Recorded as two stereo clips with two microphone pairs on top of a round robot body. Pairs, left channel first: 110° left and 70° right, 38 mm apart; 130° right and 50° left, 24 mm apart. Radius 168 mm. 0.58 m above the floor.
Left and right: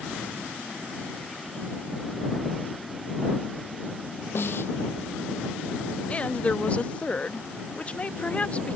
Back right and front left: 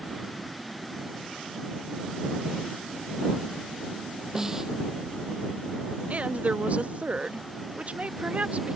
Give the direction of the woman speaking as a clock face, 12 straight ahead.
10 o'clock.